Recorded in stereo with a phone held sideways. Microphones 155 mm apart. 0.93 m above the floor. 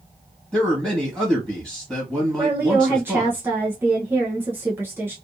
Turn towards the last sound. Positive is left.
turn(degrees=-15)  # may be behind; listen again after turning